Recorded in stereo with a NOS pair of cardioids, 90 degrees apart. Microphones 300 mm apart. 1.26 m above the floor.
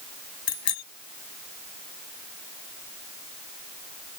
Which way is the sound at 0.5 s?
65° left.